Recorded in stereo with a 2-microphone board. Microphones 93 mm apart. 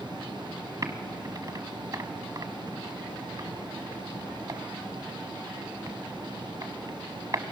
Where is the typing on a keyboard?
40° right (ahead or behind), 1.2 m.